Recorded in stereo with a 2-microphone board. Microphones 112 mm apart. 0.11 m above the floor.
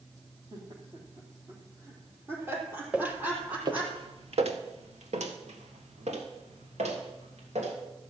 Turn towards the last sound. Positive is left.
turn(degrees=-80)